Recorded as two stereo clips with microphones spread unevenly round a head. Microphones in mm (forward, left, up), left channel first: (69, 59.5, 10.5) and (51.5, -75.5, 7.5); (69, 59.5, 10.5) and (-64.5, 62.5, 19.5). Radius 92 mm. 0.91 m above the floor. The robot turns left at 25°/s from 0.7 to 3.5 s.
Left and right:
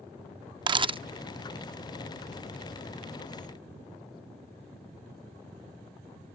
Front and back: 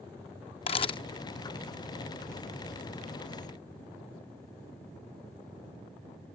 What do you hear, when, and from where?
0.7 s a camera shutter: 50° right; by 1.0 s 60° right